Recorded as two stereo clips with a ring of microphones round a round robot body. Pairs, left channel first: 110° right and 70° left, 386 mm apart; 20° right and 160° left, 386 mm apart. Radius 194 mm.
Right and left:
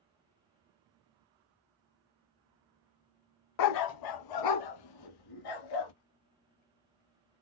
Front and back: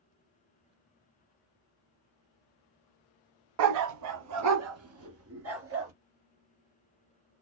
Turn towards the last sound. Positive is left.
turn(degrees=-145)